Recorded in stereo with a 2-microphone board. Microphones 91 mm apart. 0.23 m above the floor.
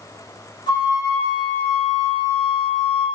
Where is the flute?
55° left (ahead or behind), 0.8 m.